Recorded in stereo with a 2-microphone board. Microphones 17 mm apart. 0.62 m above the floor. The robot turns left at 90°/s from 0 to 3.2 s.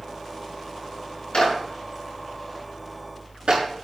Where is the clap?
80° left, 5.5 m; by 3.6 s 70° right (ahead or behind), 5.5 m.